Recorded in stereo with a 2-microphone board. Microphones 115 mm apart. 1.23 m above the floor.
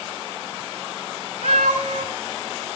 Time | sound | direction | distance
1.4 | a cat meowing | 80° right | 5 m